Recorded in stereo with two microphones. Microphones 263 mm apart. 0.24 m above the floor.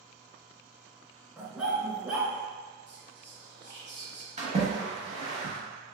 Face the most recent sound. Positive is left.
turn(degrees=-25)  # may be behind; listen again after turning